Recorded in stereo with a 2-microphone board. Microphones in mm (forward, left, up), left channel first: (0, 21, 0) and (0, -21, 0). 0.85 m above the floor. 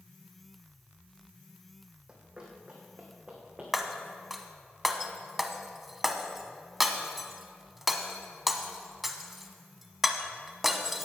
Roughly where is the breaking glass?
Centre.